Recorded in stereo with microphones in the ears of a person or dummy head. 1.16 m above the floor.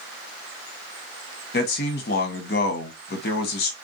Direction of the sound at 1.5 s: 40° left (ahead or behind).